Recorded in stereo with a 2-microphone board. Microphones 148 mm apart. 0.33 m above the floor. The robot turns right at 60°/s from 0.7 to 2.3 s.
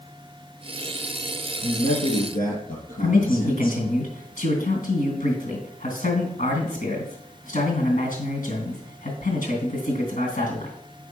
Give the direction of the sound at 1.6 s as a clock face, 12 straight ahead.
10 o'clock.